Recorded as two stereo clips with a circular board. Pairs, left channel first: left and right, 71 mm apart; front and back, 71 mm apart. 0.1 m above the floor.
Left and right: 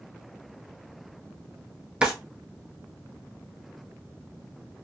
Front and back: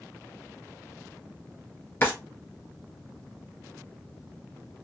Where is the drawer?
25° right, 0.9 m.